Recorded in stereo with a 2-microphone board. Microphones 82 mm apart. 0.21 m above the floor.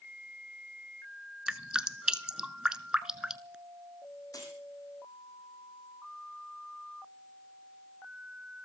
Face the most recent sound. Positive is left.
turn(degrees=45)  # may be behind; listen again after turning